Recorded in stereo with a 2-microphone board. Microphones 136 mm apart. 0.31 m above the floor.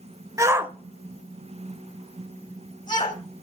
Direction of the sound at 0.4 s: 25° right (ahead or behind).